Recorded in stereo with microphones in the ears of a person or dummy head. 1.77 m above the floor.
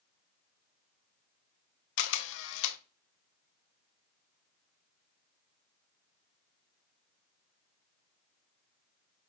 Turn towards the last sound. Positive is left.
turn(degrees=75)  # may be behind; listen again after turning